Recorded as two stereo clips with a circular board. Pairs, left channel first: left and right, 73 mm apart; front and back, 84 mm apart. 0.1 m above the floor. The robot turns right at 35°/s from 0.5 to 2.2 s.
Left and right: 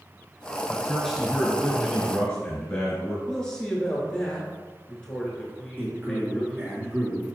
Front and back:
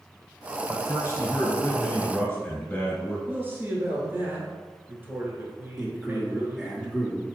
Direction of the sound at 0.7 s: 15° right.